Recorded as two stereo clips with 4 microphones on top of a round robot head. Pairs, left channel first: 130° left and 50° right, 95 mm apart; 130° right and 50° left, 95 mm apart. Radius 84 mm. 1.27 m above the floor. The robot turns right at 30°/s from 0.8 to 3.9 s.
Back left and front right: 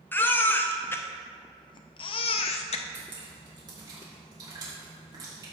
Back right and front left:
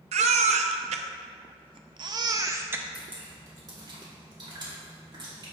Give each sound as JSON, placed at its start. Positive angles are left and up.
{"t": 0.1, "sound": "a baby crying", "azimuth_deg": 60, "distance_m": 0.5}
{"t": 2.9, "sound": "dripping", "azimuth_deg": -25, "distance_m": 3.0}